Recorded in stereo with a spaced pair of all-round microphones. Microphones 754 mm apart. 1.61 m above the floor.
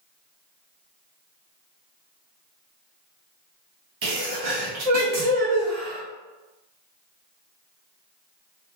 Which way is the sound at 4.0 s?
55° right (ahead or behind).